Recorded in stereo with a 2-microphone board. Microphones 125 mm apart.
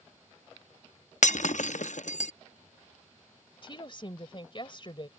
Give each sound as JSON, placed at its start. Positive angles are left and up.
{"t": 1.2, "sound": "breaking glass", "side_deg": 75}
{"t": 3.6, "sound": "a woman speaking", "side_deg": 40}